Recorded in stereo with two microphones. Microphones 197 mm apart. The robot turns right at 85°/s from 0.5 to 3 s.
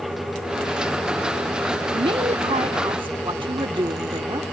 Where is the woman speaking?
140° right; by 4.4 s 50° right.